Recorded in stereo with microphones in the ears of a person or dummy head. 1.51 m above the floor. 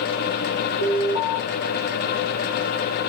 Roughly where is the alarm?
Left.